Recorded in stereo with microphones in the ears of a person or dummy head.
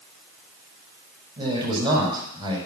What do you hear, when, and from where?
1.4 s a man speaking: 25° right (ahead or behind), 5.5 m